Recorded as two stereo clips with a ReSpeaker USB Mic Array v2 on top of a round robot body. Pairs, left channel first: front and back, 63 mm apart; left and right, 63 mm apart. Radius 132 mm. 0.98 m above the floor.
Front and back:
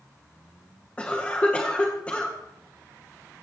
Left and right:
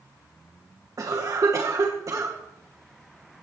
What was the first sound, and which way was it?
A cough, 70° right.